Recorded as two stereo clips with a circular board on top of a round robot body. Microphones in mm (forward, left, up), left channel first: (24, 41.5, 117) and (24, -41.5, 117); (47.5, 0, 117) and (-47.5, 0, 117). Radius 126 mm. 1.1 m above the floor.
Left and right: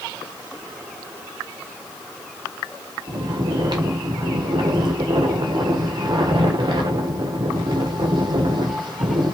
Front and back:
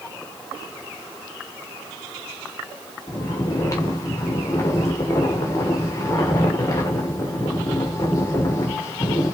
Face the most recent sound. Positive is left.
turn(degrees=-60)